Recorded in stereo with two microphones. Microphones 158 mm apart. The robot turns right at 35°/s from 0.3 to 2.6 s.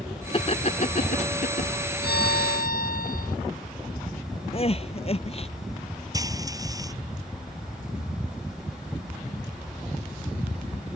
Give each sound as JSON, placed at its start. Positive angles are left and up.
{"t": 0.3, "sound": "laughter", "side_deg": 35}
{"t": 2.0, "sound": "a violin", "side_deg": 85}
{"t": 4.5, "sound": "crying", "side_deg": 40}
{"t": 6.1, "sound": "frying", "side_deg": -20}